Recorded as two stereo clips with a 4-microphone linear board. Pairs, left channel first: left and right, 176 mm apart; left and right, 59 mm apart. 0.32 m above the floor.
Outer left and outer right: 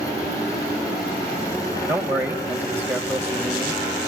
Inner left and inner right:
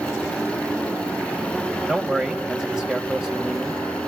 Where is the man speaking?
10° right (ahead or behind), 1.8 m.